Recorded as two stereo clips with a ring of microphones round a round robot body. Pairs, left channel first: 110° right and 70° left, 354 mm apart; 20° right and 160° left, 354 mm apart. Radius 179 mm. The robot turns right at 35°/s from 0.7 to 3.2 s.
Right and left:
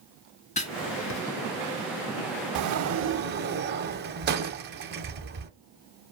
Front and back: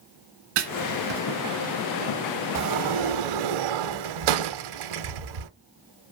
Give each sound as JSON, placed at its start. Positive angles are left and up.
{"t": 0.6, "sound": "writing", "azimuth_deg": 175, "distance_m": 1.0}
{"t": 2.5, "sound": "a sliding door", "azimuth_deg": 110, "distance_m": 0.6}